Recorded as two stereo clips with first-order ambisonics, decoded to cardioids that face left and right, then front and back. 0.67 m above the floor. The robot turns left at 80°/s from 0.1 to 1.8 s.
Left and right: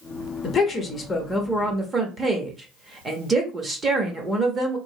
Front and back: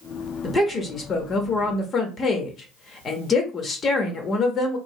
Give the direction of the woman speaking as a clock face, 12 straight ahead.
10 o'clock.